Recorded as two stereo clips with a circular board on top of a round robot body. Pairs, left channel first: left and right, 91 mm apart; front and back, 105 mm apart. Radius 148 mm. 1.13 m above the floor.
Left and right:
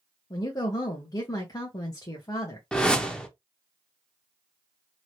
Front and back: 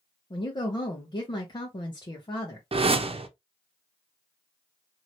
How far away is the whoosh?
About 0.8 m.